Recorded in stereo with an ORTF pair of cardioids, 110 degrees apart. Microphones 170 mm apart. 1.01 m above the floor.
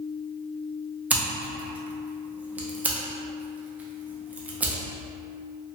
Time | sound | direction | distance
1.1 | scissors | 10° right | 0.6 m